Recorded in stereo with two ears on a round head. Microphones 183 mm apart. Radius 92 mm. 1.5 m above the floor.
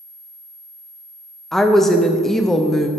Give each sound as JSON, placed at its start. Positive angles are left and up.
{"t": 1.5, "sound": "a woman speaking", "side_deg": 0, "distance_m": 0.5}